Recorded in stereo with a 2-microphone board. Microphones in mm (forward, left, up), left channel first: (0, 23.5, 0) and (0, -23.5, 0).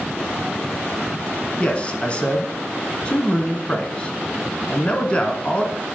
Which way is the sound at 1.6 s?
25° left (ahead or behind).